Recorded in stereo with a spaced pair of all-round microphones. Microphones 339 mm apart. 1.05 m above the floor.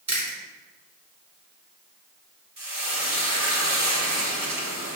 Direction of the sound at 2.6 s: 75° right (ahead or behind).